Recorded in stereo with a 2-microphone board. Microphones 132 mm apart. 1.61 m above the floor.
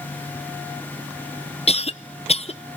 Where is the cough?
50° left (ahead or behind), 0.6 m.